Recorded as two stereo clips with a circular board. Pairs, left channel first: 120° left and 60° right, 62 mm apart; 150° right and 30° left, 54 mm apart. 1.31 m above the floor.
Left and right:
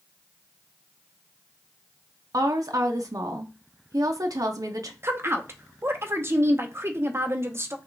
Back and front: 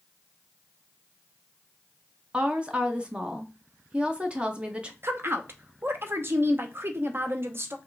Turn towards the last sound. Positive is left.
turn(degrees=-15)